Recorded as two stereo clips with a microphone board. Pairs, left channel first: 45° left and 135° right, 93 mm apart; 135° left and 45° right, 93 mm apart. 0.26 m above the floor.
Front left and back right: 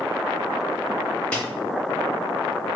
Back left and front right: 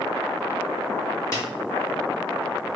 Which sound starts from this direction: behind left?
A snare drum, at 1.3 s.